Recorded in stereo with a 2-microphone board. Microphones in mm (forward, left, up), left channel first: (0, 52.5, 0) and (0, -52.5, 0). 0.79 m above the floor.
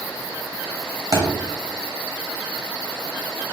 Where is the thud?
35° right (ahead or behind), 0.9 m.